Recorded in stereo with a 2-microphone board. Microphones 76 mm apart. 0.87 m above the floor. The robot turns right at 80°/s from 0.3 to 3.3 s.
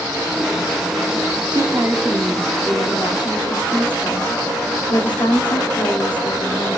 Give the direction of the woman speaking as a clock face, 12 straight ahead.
2 o'clock.